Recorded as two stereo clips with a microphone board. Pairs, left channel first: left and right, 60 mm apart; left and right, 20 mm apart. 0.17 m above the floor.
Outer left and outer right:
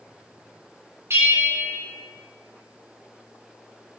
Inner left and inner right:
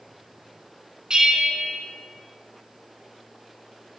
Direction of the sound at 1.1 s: 45° right (ahead or behind).